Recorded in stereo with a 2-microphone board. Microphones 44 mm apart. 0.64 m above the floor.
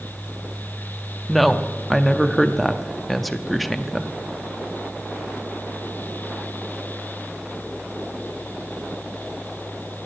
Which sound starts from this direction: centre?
A woman speaking, at 1.3 s.